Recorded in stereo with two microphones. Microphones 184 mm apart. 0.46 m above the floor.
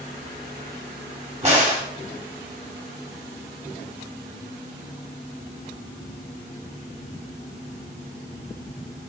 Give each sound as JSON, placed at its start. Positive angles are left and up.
{"t": 1.4, "sound": "a crack", "side_deg": -40, "distance_m": 2.5}